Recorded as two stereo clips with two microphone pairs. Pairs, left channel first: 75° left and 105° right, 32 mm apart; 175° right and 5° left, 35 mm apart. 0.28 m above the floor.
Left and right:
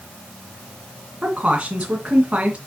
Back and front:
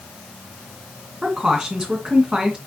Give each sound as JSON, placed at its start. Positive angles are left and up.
{"t": 1.2, "sound": "a woman speaking", "azimuth_deg": -55, "distance_m": 2.5}